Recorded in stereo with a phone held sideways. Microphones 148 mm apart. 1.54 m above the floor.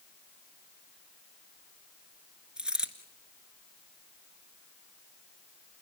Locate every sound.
2.6 s a dropped coin: 5° right (ahead or behind), 1.7 m